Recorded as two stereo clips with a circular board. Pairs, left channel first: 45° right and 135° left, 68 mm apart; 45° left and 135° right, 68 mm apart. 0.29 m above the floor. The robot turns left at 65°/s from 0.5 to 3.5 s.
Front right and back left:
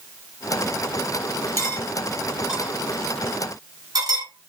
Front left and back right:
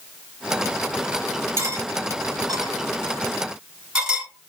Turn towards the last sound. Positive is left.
turn(degrees=140)